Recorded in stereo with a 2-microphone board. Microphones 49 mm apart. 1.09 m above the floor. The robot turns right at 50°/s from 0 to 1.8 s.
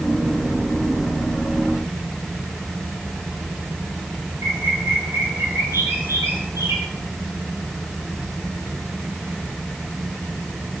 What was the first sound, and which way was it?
A bird, 90° right.